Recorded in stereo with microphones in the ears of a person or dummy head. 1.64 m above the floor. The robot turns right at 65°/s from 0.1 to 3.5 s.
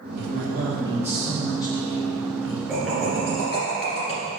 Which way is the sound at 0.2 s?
70° right.